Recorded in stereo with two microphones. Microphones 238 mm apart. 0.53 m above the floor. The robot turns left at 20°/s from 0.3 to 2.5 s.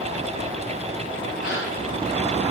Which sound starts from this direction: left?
A gasp, at 1.4 s.